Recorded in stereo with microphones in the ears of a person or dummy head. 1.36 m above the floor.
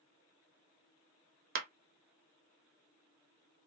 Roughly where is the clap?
Right.